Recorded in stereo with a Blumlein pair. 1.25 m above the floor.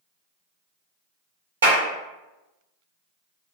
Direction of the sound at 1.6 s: 65° right.